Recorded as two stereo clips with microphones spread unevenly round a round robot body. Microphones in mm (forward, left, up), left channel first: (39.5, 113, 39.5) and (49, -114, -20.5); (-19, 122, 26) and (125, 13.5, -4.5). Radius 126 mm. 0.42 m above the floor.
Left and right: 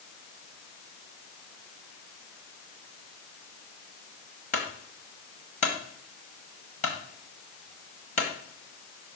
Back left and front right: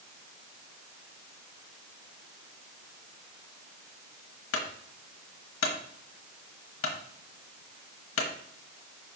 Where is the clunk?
160° left, 1.2 m.